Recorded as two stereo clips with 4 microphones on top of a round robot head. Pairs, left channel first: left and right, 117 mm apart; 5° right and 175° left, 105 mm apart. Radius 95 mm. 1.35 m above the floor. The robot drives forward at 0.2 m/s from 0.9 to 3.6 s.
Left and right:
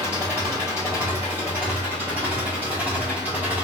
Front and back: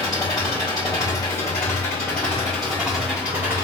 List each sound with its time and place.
0.0 s an engine running: 30° right, 0.9 m; by 3.6 s 140° right, 0.9 m